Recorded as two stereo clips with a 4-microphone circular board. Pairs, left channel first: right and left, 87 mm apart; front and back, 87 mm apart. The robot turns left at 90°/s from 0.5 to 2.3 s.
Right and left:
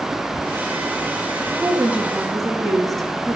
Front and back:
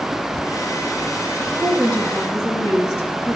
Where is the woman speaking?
60° left, 1.4 m; by 3.4 s 5° right, 1.4 m.